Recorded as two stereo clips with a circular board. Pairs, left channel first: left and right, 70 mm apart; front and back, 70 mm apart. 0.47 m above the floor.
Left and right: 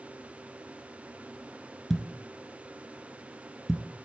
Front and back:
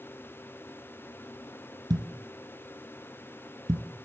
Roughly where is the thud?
Behind.